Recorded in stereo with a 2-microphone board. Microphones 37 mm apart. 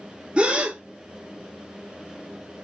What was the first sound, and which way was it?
A gasp, 30° right (ahead or behind).